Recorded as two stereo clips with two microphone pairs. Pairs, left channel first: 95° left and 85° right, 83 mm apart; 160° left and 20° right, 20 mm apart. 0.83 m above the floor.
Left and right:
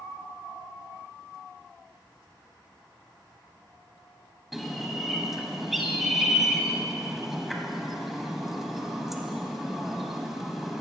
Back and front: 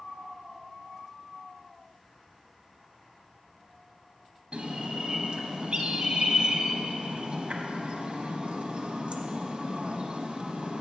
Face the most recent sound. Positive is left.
turn(degrees=0)